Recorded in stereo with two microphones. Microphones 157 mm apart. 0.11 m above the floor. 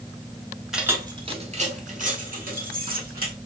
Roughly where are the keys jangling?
Centre.